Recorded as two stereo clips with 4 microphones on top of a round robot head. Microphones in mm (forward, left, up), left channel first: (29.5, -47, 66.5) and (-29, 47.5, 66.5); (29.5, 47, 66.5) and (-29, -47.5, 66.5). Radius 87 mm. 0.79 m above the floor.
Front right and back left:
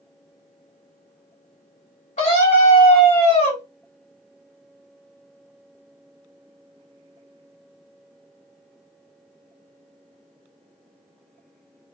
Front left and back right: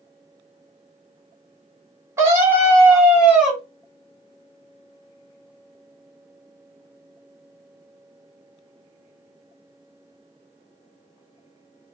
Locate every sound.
2.2 s a scream: 60° right, 3 m; by 3.6 s 35° right, 3 m